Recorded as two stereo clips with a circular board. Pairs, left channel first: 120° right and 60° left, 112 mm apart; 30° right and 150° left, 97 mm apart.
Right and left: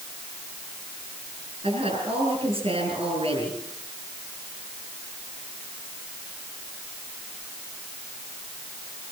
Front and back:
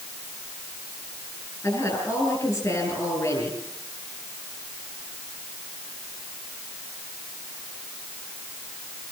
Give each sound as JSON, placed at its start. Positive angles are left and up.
{"t": 1.6, "sound": "a woman speaking", "azimuth_deg": 30, "distance_m": 9.0}